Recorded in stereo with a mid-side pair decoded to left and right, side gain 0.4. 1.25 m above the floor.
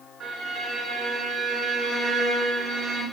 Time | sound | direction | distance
0.2 | a violin | 70° right | 1.5 m